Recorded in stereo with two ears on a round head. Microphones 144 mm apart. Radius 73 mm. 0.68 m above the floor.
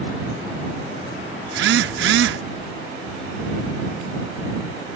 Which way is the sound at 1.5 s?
75° right (ahead or behind).